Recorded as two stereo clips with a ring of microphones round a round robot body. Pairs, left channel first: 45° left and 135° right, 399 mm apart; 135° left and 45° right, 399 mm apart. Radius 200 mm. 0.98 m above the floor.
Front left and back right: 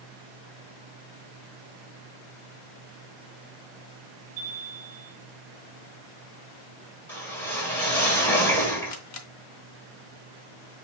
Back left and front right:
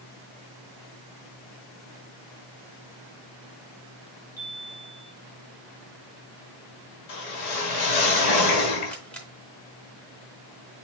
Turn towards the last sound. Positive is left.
turn(degrees=50)